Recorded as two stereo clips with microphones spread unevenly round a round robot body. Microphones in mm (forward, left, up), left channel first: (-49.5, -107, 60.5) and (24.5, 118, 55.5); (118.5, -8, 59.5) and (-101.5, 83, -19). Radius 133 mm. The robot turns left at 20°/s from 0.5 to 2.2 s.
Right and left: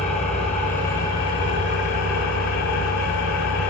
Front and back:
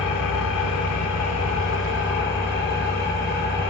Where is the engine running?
45° right, 1.8 m; by 3.7 s 80° right, 1.8 m.